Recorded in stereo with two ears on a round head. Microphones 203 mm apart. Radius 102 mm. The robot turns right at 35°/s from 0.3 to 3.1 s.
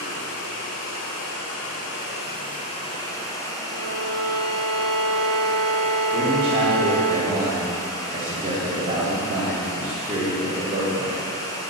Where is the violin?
60° left (ahead or behind), 2 m.